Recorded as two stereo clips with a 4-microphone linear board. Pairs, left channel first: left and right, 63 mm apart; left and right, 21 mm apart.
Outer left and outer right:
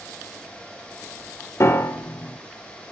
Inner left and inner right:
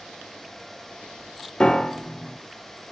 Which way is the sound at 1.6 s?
50° left (ahead or behind).